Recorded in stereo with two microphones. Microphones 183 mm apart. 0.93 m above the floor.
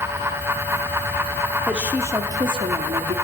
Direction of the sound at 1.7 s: 5° right (ahead or behind).